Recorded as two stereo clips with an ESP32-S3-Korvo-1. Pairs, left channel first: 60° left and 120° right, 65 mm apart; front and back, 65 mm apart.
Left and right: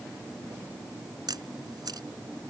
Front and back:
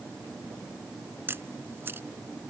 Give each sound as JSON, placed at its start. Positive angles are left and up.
{"t": 1.3, "sound": "a camera shutter", "azimuth_deg": -125}